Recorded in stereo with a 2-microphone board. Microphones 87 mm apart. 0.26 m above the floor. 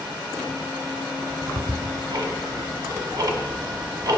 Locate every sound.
1.2 s ticking: 50° right (ahead or behind), 0.7 m